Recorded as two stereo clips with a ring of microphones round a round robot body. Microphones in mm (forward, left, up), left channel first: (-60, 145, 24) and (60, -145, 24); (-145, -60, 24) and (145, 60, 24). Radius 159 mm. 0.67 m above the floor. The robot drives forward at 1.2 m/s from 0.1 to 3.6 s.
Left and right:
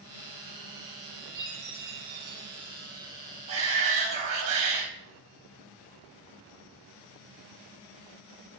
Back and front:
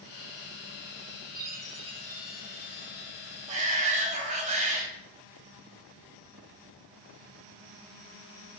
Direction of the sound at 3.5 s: 45° right.